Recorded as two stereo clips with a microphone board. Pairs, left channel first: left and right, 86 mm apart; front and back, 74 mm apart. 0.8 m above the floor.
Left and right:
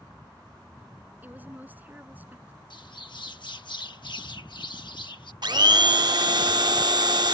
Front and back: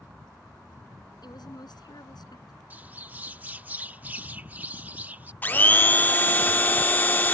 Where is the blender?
65° right.